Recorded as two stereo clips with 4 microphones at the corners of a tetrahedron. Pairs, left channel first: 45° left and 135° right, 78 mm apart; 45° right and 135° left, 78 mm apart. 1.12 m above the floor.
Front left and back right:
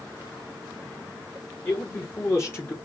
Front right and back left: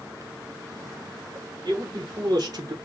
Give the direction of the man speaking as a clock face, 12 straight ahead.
9 o'clock.